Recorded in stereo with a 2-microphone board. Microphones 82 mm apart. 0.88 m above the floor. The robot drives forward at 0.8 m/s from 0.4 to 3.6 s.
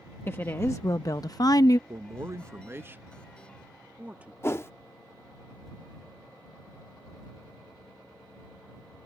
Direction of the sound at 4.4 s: 30° left (ahead or behind).